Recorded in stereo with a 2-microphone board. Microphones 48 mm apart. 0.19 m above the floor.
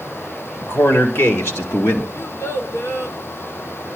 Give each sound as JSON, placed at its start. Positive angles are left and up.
{"t": 0.6, "sound": "a man speaking", "side_deg": 65, "distance_m": 3.5}
{"t": 2.1, "sound": "a child speaking", "side_deg": 65, "distance_m": 2.5}